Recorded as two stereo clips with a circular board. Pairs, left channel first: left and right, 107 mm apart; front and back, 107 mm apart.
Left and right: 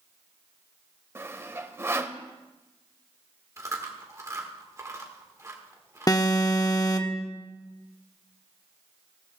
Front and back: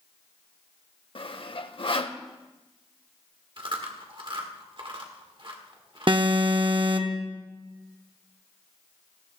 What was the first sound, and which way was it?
Sawing, 25° right.